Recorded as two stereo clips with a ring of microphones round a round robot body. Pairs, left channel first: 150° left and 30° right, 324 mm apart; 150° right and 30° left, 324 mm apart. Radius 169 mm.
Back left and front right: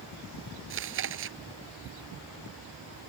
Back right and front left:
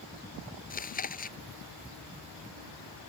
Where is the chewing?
85° right.